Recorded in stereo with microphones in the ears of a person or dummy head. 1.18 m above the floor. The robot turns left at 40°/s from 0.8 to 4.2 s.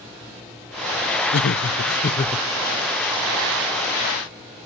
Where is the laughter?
75° left, 0.6 m; by 2.5 s 30° left, 0.6 m.